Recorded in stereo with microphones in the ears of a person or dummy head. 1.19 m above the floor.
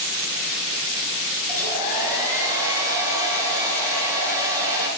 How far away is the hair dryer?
About 5.5 m.